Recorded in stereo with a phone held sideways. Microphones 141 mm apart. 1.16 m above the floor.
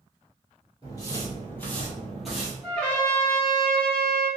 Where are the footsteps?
30° left (ahead or behind), 1.3 m; by 2.5 s 5° right (ahead or behind), 1.3 m.